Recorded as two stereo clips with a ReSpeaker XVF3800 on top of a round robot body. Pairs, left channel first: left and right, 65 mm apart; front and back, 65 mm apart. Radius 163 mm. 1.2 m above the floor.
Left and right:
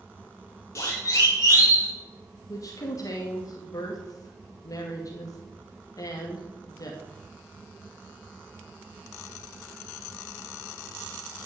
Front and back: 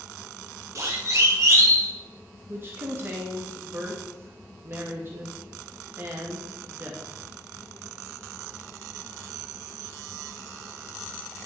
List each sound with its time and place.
0.8 s a siren: 135° left, 5 m; by 1.9 s 130° left, 5.5 m
2.5 s a woman speaking: 125° left, 2.5 m